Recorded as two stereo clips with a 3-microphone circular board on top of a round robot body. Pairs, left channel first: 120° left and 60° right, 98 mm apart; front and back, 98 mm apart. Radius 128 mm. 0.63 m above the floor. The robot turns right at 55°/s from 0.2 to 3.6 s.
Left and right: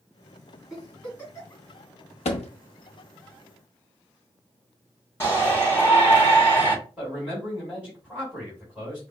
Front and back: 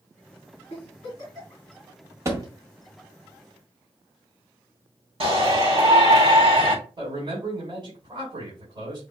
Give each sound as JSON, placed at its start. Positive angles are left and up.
{"t": 0.7, "sound": "a giggle", "azimuth_deg": 25, "distance_m": 3.0}
{"t": 2.2, "sound": "a thud", "azimuth_deg": 115, "distance_m": 0.7}
{"t": 5.2, "sound": "a shout", "azimuth_deg": -175, "distance_m": 3.5}
{"t": 7.0, "sound": "a man speaking", "azimuth_deg": -150, "distance_m": 3.0}